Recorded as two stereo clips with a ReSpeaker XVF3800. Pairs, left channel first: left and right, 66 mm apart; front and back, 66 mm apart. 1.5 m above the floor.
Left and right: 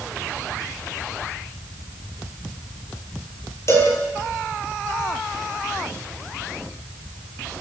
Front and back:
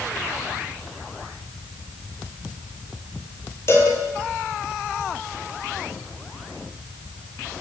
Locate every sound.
3.7 s a cowbell: 45° left, 9.5 m